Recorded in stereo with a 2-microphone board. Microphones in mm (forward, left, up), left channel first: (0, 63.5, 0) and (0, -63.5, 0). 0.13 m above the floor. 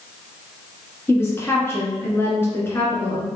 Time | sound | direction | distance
1.1 | a woman speaking | 20° left (ahead or behind) | 1.8 m